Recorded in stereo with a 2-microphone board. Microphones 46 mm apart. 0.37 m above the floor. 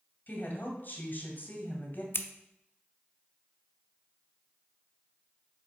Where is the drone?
I don't hear a drone.